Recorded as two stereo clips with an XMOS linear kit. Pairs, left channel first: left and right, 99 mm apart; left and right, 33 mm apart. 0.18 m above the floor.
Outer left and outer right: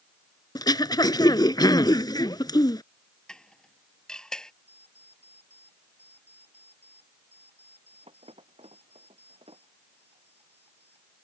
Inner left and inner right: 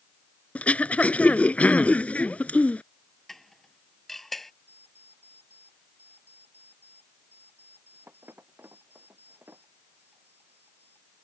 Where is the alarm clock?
85° right.